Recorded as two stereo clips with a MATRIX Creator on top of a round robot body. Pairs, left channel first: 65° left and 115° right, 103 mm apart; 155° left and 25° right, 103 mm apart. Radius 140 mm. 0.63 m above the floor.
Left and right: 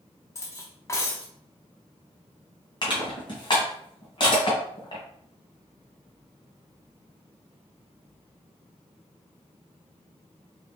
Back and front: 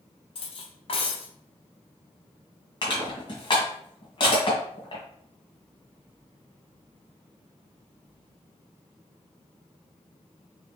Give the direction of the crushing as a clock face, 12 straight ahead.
8 o'clock.